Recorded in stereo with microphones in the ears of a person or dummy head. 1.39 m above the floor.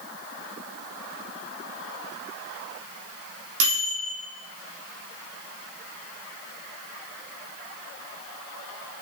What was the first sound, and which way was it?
A microwave, 70° right (ahead or behind).